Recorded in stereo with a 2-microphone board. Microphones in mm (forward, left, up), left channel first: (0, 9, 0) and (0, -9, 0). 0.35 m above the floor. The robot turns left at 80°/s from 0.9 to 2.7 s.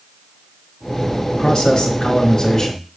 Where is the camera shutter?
No camera shutter in this recording.